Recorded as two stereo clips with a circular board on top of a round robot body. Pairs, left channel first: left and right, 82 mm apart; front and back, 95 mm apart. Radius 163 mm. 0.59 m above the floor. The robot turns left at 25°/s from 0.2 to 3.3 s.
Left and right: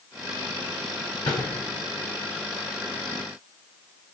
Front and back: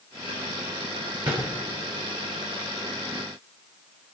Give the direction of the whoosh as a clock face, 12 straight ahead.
8 o'clock.